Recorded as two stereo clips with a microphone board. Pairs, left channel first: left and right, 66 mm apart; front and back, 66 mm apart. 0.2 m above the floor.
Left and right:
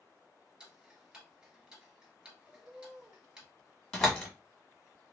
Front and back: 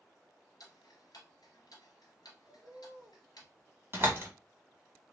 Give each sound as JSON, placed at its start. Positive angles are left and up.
{"t": 0.6, "sound": "ticking", "azimuth_deg": -15, "distance_m": 1.0}
{"t": 2.5, "sound": "a bird", "azimuth_deg": -170, "distance_m": 1.3}
{"t": 3.9, "sound": "a door slam", "azimuth_deg": 170, "distance_m": 1.0}